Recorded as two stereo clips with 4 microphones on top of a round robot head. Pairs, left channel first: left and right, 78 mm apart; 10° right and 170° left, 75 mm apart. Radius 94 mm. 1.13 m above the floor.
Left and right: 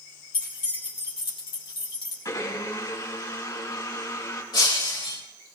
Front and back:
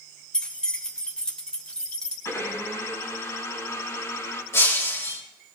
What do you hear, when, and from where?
0.3 s keys jangling: 70° left, 3 m
2.2 s a blender: 40° left, 4.5 m
4.5 s breaking glass: 45° left, 3.5 m